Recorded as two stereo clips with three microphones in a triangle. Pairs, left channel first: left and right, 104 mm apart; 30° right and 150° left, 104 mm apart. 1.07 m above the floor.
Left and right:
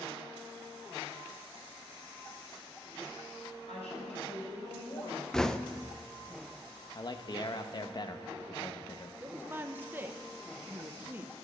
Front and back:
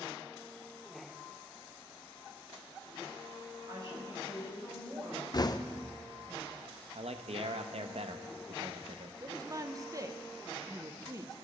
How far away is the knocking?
About 0.5 m.